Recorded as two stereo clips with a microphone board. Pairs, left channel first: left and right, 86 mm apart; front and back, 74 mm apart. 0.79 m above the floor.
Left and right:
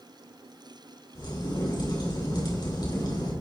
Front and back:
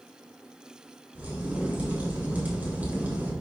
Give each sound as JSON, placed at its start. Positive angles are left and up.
{"t": 1.1, "sound": "a crack", "azimuth_deg": 115, "distance_m": 3.5}